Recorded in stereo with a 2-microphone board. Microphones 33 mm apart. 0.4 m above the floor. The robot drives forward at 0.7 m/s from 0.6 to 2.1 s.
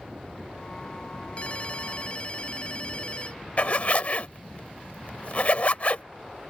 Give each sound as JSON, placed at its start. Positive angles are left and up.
{"t": 1.4, "sound": "a ringtone", "side_deg": 40}
{"t": 3.6, "sound": "a zipper", "side_deg": 45}